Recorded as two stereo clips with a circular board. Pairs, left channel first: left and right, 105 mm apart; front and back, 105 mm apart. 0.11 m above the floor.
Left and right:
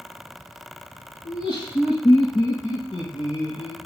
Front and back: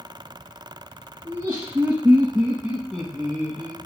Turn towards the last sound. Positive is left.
turn(degrees=75)